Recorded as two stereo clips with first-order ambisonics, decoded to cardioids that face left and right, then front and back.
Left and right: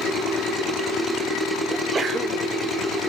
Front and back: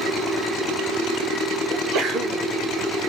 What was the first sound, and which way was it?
A sneeze, 155° right.